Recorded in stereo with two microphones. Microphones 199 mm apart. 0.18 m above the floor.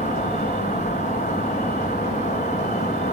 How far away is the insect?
About 2.5 m.